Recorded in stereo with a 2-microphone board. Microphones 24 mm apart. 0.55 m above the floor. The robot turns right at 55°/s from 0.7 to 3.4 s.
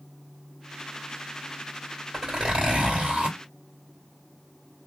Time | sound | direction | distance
2.1 | a zipper | 145° right | 2.5 m